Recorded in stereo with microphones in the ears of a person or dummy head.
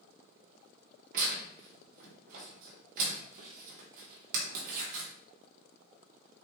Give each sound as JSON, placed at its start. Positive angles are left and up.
{"t": 1.1, "sound": "tearing paper", "side_deg": -50, "distance_m": 1.6}